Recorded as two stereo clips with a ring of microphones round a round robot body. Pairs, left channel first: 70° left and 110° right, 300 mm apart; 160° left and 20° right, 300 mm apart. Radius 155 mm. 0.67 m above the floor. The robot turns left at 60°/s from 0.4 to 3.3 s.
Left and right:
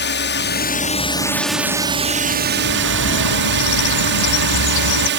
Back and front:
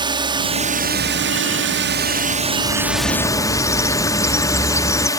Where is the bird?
125° left; by 5.1 s 75° left.